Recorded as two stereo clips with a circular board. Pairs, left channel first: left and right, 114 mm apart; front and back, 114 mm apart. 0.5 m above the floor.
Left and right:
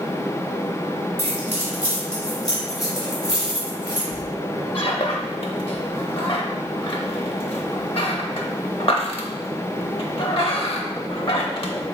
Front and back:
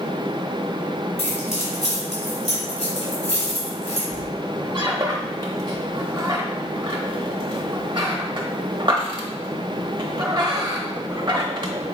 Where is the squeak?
130° left, 0.7 m.